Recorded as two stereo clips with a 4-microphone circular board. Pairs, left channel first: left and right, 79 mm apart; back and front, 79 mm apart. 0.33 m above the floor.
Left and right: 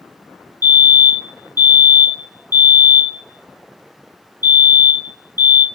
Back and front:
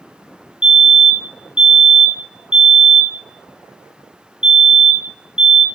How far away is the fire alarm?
About 4 m.